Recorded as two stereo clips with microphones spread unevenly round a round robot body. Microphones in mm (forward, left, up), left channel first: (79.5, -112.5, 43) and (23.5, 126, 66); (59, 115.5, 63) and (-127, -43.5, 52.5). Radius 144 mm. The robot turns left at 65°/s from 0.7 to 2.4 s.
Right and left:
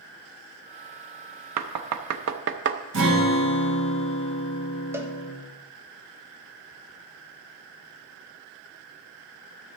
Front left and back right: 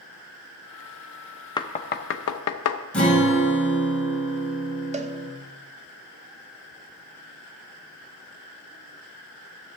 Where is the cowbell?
175° right, 0.9 m.